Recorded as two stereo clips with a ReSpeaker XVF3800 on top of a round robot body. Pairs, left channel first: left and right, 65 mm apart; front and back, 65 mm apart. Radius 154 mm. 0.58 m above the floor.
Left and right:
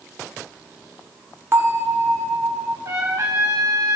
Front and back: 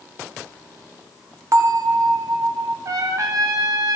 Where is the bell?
140° right, 1.1 m.